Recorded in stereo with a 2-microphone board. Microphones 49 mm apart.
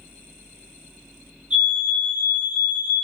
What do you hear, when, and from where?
1.5 s a fire alarm: 20° right (ahead or behind), 1.9 m